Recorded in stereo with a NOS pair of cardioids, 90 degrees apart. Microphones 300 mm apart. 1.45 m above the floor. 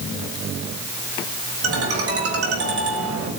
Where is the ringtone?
50° right, 6 m.